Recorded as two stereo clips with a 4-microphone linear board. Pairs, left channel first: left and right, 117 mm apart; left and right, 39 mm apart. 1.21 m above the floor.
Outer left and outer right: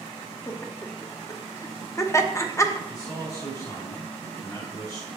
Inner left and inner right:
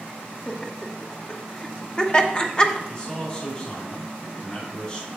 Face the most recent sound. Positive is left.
turn(degrees=30)  # may be behind; listen again after turning